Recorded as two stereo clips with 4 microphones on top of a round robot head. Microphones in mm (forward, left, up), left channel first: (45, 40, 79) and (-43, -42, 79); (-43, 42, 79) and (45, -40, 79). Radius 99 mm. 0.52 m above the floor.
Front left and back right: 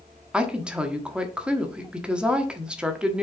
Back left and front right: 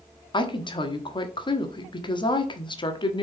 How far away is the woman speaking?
About 1.5 m.